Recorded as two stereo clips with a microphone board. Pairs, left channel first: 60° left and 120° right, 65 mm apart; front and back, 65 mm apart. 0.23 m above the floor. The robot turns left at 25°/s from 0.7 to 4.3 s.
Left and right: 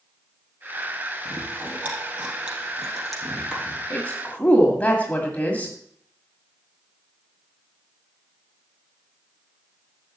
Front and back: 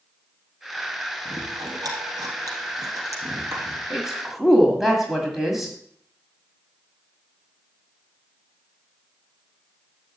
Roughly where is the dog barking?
I don't hear a dog barking.